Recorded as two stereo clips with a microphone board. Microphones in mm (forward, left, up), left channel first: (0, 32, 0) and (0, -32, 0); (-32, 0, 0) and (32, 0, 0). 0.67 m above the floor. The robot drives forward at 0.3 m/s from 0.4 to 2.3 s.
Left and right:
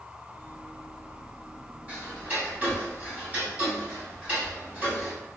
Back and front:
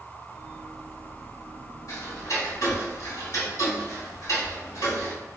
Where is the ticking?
155° right, 2 m.